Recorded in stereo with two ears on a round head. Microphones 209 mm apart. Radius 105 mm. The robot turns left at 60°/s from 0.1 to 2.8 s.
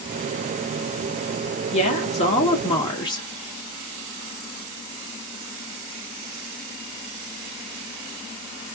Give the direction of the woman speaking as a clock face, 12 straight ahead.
8 o'clock.